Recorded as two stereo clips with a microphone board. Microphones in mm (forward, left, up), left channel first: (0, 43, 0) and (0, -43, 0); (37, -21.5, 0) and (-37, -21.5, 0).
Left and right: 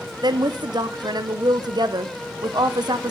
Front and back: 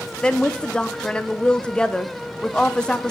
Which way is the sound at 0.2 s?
75° right.